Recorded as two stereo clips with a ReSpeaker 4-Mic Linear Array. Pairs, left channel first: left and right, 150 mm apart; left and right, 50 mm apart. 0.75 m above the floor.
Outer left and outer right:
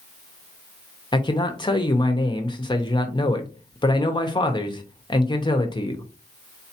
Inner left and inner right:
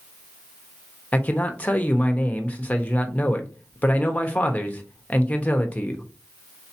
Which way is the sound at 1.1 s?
30° left (ahead or behind).